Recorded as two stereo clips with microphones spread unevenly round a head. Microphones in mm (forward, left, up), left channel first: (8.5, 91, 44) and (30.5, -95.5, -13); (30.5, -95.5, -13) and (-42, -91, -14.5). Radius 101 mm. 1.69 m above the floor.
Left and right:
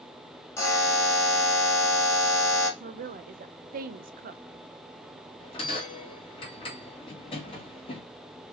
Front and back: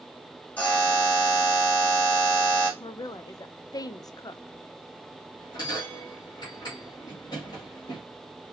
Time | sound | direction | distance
0.6 | a buzzer | 55° left | 1.3 m
2.8 | a woman speaking | 30° right | 0.5 m
5.4 | a bell | 40° left | 1.8 m